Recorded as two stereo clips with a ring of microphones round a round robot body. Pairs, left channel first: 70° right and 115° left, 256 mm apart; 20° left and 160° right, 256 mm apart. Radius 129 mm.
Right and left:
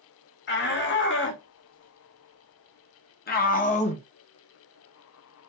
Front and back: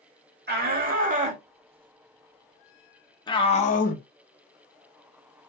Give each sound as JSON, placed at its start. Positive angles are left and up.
{"t": 0.5, "sound": "a shout", "azimuth_deg": -110, "distance_m": 2.0}